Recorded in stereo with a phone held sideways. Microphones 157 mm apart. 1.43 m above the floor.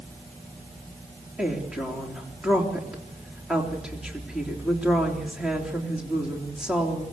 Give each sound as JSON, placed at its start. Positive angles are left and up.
{"t": 1.4, "sound": "a woman speaking", "side_deg": -5, "distance_m": 3.5}